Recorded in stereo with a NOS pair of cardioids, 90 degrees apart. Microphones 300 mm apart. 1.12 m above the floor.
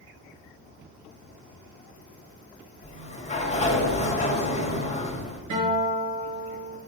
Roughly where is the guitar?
Right.